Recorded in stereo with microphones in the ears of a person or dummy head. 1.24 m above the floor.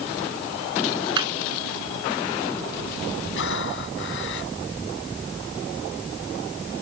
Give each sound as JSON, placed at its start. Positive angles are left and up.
{"t": 1.2, "sound": "laughter", "side_deg": -25}
{"t": 3.4, "sound": "breathing", "side_deg": 70}